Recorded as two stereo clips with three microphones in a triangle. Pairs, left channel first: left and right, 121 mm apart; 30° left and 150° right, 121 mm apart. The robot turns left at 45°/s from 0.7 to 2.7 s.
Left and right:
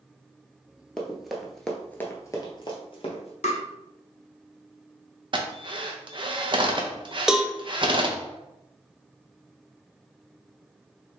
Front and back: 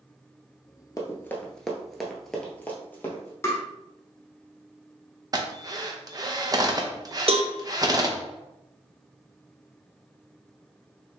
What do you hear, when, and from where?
1.0 s running footsteps: 10° left, 1.0 m; by 3.3 s 100° left, 1.6 m
3.4 s tapping: 95° left, 1.0 m
5.3 s a drill: 110° right, 0.6 m
7.3 s a cowbell: 175° right, 0.5 m